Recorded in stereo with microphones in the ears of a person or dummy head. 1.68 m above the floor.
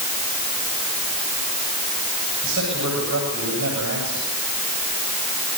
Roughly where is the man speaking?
Right.